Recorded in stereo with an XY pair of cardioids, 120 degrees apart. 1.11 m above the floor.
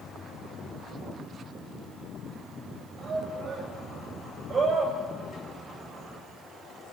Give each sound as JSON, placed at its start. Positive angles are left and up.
{"t": 3.0, "sound": "a shout", "azimuth_deg": -40, "distance_m": 6.5}